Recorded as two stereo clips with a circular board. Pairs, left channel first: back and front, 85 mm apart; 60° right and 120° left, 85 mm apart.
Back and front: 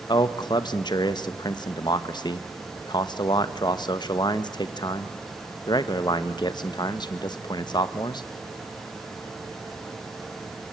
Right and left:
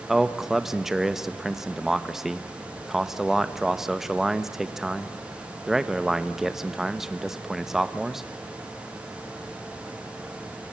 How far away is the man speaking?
About 1.3 m.